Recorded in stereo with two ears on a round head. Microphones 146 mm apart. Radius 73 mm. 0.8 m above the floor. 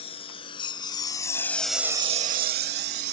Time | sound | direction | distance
0.0 | a lawn mower | 35° left (ahead or behind) | ?